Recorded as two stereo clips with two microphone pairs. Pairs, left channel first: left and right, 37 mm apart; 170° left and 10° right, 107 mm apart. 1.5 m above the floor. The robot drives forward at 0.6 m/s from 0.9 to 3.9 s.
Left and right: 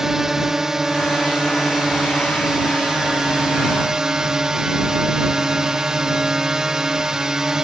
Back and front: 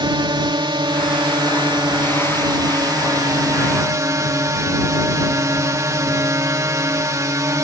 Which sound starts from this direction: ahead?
A drone, at 0.0 s.